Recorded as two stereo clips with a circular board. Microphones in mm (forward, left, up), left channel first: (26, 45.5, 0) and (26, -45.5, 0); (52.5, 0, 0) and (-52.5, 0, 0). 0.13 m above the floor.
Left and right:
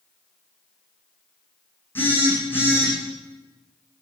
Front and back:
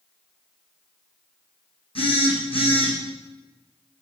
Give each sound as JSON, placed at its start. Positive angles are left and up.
{"t": 1.9, "sound": "a phone buzzing", "azimuth_deg": 25, "distance_m": 6.5}